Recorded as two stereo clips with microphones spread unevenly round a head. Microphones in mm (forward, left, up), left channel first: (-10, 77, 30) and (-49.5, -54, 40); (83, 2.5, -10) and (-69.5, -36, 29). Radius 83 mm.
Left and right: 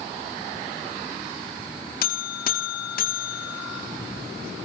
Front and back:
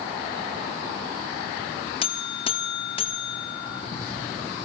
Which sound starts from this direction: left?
A buzzer, at 2.0 s.